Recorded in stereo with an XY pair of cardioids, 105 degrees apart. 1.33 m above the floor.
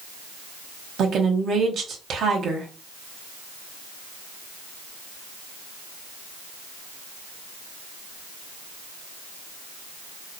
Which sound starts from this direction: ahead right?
A woman speaking, at 1.0 s.